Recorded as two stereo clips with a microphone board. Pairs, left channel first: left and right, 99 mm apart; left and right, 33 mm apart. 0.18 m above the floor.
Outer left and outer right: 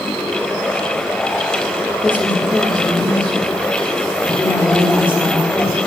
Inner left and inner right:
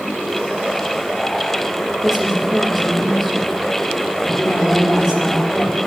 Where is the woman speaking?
10° left (ahead or behind), 7.5 m.